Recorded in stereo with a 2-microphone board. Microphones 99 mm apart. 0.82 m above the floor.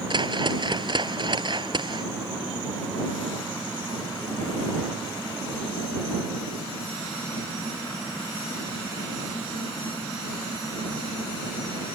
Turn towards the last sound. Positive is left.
turn(degrees=-55)  # may be behind; listen again after turning